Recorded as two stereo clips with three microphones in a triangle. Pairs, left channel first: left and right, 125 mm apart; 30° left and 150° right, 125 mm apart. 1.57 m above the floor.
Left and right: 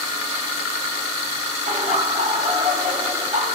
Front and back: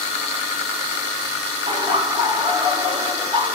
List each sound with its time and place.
1.7 s laughter: 100° right, 3.5 m